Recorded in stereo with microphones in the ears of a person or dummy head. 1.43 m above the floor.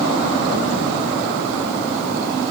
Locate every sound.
Only background noise.